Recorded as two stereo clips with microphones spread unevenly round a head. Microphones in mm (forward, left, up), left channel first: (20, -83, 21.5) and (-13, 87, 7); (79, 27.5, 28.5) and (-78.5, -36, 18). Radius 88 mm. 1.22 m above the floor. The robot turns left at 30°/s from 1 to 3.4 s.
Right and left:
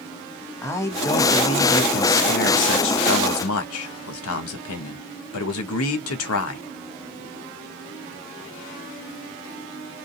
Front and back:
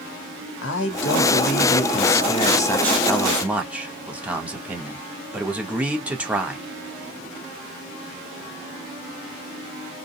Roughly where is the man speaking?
Ahead.